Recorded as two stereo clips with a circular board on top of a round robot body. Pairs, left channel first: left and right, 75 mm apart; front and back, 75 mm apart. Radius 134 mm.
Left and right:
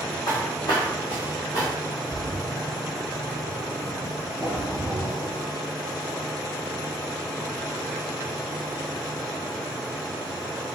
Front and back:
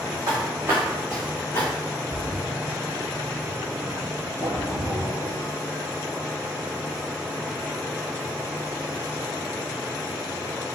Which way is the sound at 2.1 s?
30° left.